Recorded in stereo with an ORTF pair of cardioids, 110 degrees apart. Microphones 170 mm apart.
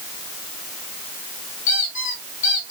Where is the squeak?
55° left, 3.5 m.